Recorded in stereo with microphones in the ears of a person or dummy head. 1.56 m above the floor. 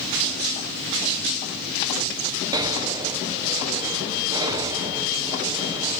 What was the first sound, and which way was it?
Breathing, 20° right (ahead or behind).